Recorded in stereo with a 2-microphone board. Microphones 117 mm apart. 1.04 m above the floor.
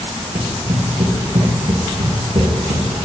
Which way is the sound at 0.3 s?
75° right (ahead or behind).